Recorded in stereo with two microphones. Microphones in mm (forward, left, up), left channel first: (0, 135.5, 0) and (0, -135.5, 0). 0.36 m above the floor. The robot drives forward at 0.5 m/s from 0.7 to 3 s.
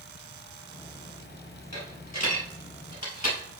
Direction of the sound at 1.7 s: 85° left.